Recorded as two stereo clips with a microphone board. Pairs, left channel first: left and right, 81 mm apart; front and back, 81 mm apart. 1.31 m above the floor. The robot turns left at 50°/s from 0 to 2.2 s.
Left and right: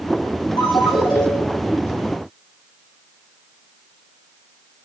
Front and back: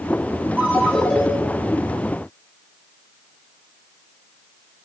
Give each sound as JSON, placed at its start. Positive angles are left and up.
{"t": 0.6, "sound": "a ringtone", "azimuth_deg": 110, "distance_m": 3.0}